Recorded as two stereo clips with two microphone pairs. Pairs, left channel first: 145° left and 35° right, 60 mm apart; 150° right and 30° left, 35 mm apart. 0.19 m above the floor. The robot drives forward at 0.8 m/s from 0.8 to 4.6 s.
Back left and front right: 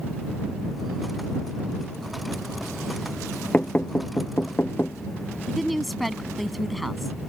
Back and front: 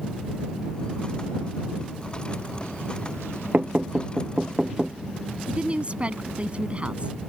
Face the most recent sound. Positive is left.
turn(degrees=55)